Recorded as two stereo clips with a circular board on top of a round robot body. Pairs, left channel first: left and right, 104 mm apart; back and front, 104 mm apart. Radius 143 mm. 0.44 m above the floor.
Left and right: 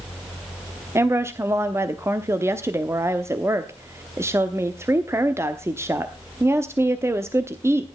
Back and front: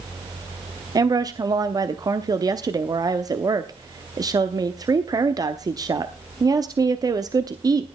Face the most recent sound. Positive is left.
turn(degrees=-35)